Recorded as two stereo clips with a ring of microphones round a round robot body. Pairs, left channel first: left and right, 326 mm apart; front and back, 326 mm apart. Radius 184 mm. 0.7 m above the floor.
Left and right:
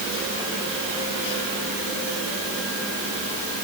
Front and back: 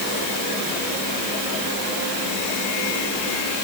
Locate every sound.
Only background noise.